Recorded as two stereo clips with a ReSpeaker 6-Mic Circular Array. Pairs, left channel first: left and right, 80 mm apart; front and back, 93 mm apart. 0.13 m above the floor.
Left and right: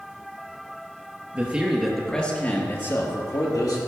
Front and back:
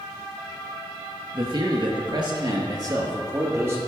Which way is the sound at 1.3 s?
160° right.